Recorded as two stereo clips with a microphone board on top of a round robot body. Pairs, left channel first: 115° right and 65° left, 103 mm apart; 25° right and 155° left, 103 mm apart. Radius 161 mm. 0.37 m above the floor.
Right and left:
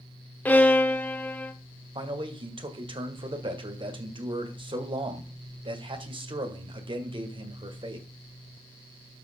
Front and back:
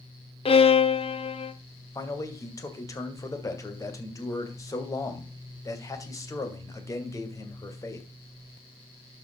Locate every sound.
0.5 s a violin: 40° right, 1.3 m
1.9 s a man speaking: 35° left, 2.5 m